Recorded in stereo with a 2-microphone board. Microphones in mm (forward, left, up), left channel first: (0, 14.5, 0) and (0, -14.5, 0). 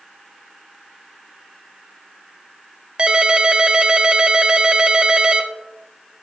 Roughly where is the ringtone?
Right.